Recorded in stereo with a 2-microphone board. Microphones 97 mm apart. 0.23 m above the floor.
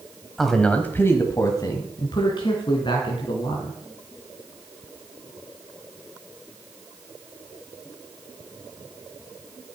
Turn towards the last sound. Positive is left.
turn(degrees=55)  # may be behind; listen again after turning